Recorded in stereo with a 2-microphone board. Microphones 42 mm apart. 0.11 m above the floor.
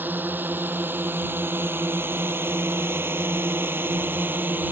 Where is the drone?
50° right (ahead or behind).